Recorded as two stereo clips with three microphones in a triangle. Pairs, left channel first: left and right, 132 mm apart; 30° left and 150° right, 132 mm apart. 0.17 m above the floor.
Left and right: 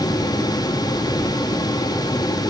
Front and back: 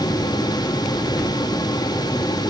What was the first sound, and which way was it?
Only background noise.